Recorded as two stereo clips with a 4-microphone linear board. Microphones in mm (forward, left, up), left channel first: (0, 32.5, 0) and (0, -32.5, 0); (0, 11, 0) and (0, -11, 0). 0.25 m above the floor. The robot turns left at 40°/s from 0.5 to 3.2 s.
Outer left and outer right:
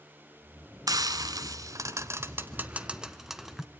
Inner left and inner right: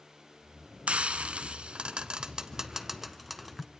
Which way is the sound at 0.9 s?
70° right (ahead or behind).